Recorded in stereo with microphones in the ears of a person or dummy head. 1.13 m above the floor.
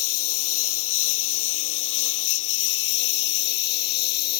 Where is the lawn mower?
80° left; by 4.4 s 55° left (ahead or behind).